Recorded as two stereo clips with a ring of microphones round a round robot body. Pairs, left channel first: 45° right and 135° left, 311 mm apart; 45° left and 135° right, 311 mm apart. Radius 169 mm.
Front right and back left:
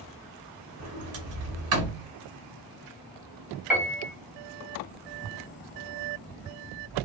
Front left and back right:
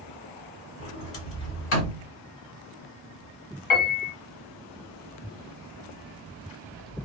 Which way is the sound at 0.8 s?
95° left.